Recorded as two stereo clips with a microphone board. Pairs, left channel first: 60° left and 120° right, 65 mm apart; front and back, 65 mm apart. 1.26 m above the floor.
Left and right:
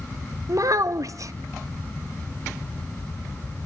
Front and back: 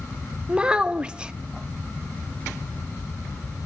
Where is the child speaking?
105° right, 0.7 m.